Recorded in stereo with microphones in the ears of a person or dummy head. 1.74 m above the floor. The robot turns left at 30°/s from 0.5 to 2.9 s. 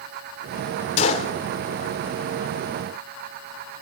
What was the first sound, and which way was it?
A gunshot, 40° left (ahead or behind).